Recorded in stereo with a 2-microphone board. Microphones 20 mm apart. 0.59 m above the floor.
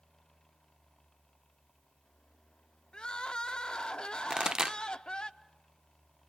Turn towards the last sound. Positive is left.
turn(degrees=-45)  # may be behind; listen again after turning